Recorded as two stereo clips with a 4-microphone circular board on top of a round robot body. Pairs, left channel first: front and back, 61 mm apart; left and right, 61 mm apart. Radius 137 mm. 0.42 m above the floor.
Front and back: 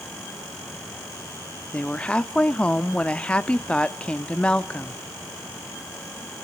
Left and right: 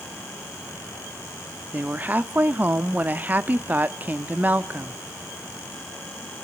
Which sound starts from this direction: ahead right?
A woman speaking, at 1.7 s.